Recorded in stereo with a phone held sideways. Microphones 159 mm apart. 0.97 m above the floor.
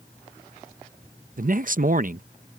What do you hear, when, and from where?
1.4 s a man speaking: 60° right (ahead or behind)